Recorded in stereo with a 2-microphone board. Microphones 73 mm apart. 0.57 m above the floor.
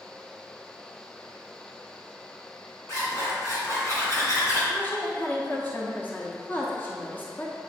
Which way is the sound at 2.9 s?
40° left (ahead or behind).